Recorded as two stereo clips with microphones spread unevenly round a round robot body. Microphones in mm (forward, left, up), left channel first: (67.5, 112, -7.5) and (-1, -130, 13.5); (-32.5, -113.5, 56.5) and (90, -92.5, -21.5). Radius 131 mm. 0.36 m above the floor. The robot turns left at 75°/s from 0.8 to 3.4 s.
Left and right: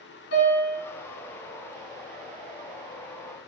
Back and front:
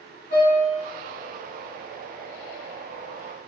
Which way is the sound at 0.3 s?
125° left.